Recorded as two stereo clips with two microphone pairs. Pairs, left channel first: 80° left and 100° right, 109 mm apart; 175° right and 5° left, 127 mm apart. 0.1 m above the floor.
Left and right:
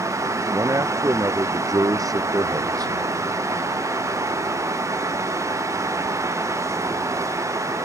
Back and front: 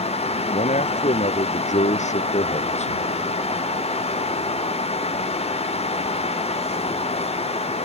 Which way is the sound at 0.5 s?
160° right.